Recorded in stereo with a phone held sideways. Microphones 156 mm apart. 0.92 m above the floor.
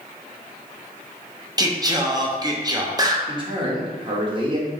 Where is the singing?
25° right (ahead or behind), 0.6 m.